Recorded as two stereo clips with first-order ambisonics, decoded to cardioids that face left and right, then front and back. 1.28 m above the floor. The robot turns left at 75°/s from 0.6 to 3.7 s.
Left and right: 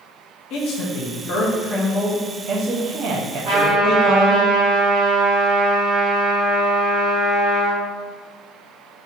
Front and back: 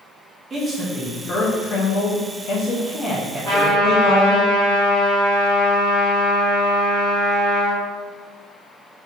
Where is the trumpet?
145° right, 1.7 m; by 7.8 s 165° right, 1.7 m.